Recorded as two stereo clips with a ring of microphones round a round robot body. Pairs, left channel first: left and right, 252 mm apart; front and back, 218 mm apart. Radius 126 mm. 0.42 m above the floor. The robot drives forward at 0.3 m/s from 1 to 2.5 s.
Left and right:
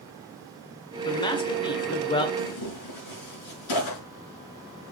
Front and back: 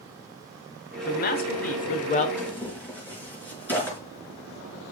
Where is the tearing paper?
80° left, 5.5 m.